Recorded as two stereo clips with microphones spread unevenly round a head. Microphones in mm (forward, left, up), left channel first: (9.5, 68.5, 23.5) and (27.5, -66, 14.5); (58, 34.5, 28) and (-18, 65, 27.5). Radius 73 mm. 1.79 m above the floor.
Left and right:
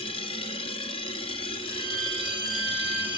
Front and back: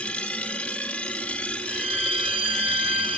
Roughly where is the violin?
Behind left.